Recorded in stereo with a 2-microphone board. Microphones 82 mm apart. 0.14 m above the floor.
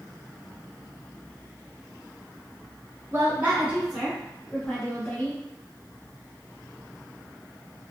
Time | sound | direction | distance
3.1 | a woman speaking | 30° right (ahead or behind) | 1.2 m